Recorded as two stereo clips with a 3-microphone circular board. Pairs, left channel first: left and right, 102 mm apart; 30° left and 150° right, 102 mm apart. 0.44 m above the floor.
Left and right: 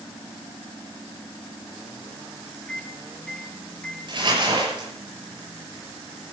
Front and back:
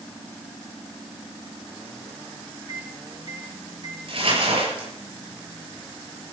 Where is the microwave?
170° left, 2.5 m.